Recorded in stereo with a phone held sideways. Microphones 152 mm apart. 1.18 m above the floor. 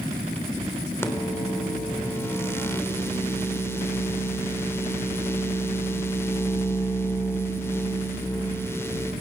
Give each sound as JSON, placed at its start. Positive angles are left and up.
{"t": 1.0, "sound": "a microwave", "side_deg": 15, "distance_m": 3.5}